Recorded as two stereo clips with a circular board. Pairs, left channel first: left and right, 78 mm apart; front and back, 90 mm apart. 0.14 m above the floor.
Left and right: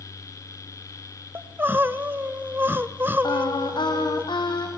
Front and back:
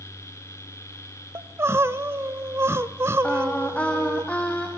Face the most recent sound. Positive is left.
turn(degrees=75)